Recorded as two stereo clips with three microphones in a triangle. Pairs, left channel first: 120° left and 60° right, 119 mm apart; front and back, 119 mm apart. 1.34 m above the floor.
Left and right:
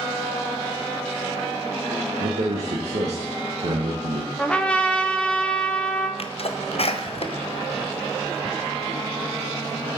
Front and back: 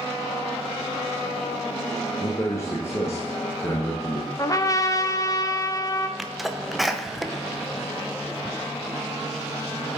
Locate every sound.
2.2 s a man speaking: 65° right, 1.3 m
4.4 s a trumpet: 45° left, 0.6 m
6.2 s a sneeze: 90° left, 0.7 m